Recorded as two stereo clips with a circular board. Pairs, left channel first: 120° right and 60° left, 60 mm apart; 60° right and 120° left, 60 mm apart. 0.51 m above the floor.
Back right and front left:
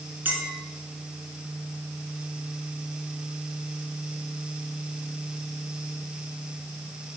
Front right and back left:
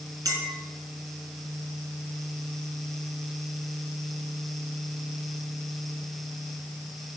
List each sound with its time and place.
0.2 s a clink: 120° left, 4 m